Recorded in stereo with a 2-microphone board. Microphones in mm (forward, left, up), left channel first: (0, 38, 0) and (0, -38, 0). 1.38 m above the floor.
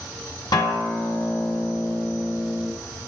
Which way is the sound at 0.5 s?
80° left.